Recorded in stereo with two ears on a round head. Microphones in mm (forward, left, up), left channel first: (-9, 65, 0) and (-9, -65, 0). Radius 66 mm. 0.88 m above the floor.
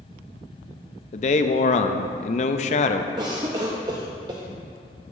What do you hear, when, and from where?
1.1 s a man speaking: 45° left (ahead or behind), 0.5 m
3.2 s a cough: 30° right (ahead or behind), 0.6 m